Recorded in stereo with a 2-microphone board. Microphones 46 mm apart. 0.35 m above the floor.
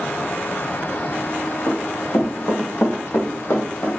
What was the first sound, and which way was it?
Running footsteps, 75° left (ahead or behind).